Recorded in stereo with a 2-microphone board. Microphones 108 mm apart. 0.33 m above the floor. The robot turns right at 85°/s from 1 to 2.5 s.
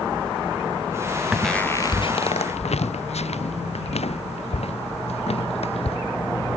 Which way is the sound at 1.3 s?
5° right (ahead or behind).